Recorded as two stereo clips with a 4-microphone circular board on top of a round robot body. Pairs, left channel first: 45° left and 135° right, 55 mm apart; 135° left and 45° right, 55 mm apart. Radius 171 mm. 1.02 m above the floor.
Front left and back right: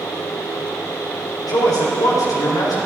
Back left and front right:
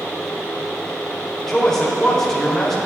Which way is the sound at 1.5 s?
55° left.